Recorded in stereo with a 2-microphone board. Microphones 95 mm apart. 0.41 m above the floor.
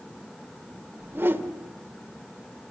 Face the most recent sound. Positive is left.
turn(degrees=-25)  # may be behind; listen again after turning